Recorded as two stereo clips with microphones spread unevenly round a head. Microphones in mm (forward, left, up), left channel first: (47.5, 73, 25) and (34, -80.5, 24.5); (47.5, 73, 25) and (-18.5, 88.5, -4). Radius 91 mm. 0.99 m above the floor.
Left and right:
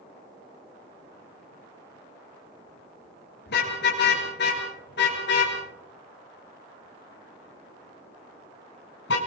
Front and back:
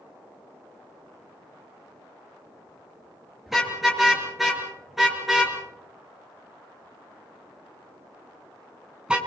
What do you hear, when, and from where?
3.5 s a car horn: 75° left, 8.5 m; by 9.2 s 90° left, 5 m